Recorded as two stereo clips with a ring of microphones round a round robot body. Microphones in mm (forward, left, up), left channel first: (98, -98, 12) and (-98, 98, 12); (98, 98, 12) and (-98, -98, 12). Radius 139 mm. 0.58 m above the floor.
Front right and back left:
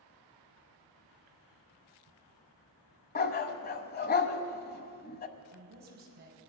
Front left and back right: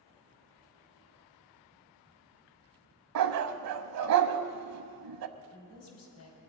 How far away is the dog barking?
About 0.9 m.